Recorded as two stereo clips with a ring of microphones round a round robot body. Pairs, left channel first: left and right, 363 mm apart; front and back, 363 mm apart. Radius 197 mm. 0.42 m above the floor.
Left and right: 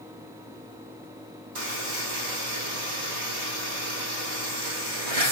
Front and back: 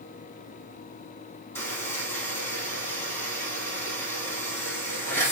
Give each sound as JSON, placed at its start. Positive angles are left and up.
{"t": 1.6, "sound": "a buzzer", "azimuth_deg": -85, "distance_m": 3.5}